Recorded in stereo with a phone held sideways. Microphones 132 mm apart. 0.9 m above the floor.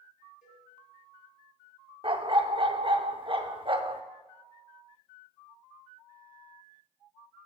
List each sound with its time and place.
0.4 s a cowbell: 85° left, 3.5 m
2.0 s a dog barking: 40° right (ahead or behind), 0.6 m